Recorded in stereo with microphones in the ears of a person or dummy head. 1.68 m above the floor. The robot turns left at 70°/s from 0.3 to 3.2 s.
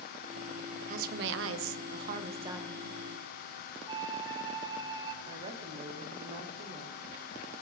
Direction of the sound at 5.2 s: 35° right (ahead or behind).